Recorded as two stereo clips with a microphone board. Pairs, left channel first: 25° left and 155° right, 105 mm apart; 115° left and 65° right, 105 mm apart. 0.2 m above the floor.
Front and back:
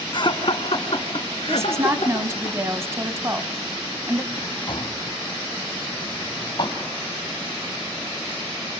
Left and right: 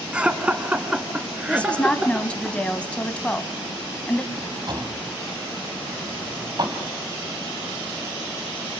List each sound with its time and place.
0.1 s laughter: 10° left, 2.0 m
1.5 s a woman speaking: straight behind, 1.2 m
4.3 s a drawer: 20° right, 3 m